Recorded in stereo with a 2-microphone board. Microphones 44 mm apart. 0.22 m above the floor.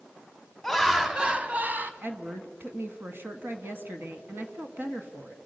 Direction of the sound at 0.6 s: 5° left (ahead or behind).